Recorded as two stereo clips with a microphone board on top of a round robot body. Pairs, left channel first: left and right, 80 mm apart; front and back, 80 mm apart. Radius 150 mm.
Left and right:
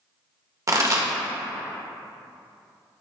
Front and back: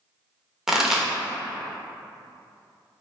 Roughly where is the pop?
Right.